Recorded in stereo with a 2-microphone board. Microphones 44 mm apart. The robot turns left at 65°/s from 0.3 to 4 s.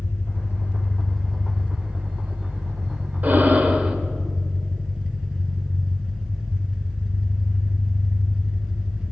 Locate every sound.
0.0 s an engine running: 75° left, 2.0 m; by 9.1 s 165° right, 2.0 m
3.2 s breathing: 100° right, 1.2 m; by 4.0 s 150° right, 1.2 m